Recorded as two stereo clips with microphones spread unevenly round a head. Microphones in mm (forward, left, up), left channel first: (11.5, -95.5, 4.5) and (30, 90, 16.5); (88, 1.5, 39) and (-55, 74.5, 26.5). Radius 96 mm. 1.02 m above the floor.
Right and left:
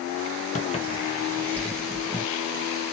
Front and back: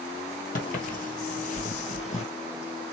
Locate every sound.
0.6 s footsteps: 50° right, 1.5 m; by 2.2 s 10° left, 1.6 m